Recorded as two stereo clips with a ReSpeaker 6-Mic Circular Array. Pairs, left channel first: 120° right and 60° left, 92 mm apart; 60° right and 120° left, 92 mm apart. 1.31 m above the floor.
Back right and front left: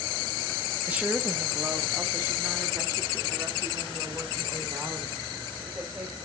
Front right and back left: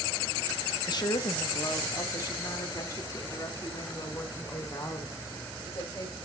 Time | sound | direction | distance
0.9 | a woman speaking | 15° right | 1.2 m